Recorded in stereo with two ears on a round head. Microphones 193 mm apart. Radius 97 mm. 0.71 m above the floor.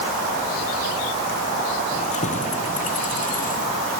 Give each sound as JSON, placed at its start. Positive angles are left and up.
{"t": 1.9, "sound": "keys jangling", "side_deg": 35}